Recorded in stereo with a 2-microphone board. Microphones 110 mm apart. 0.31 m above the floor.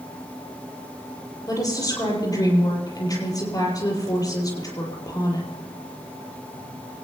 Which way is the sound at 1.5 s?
35° left (ahead or behind).